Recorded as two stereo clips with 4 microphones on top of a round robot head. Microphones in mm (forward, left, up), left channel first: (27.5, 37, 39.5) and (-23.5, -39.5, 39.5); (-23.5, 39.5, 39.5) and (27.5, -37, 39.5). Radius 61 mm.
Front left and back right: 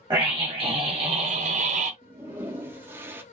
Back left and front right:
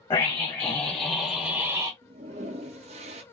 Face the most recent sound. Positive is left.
turn(degrees=-55)